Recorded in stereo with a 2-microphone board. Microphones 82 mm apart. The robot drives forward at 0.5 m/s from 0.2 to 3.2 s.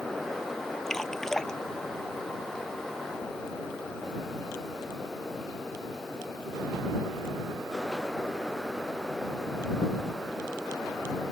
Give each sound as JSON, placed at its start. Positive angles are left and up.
{"t": 0.9, "sound": "dripping", "side_deg": 5}